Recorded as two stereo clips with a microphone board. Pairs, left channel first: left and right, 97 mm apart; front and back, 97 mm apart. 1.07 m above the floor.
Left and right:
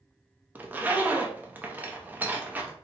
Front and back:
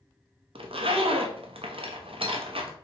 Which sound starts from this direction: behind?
A zipper, at 0.6 s.